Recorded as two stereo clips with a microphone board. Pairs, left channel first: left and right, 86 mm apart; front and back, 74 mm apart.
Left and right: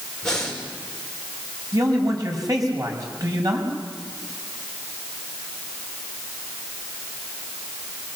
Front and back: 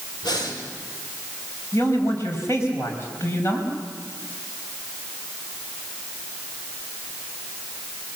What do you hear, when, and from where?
0.2 s breathing: 10° left, 5.5 m
1.7 s a man speaking: 50° right, 6 m